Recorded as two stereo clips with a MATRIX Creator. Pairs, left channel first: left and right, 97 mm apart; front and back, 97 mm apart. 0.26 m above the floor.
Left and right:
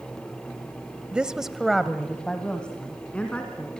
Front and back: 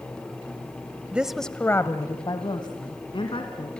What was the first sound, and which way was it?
A woman speaking, 140° right.